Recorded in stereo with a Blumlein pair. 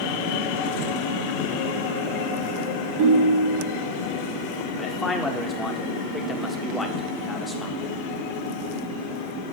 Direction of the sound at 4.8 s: 10° left.